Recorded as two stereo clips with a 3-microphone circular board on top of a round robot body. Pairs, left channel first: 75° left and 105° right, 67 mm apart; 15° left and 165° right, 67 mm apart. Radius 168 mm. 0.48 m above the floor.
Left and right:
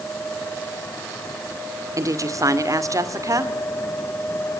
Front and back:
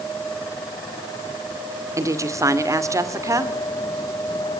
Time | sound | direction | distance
2.0 | a woman speaking | 135° right | 2.5 m